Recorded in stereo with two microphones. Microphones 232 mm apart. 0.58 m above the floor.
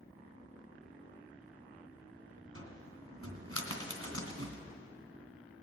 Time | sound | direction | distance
2.5 | a cupboard door | 80° right | 2.5 m